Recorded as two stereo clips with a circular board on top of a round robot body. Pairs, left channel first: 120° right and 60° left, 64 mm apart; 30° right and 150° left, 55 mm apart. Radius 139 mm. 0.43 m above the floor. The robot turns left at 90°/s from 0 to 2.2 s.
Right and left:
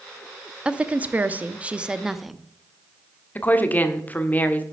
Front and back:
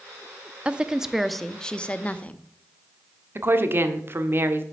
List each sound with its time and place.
0.7 s a woman speaking: 115° left, 0.9 m; by 2.4 s 25° right, 0.9 m
3.4 s a woman speaking: straight behind, 1.4 m